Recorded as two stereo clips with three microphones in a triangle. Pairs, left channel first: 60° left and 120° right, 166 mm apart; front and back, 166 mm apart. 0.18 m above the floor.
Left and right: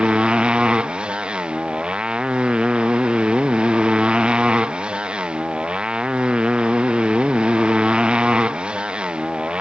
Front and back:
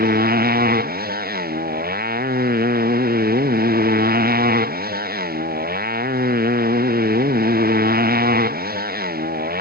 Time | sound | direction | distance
0.0 | a motorcycle | 155° left | ?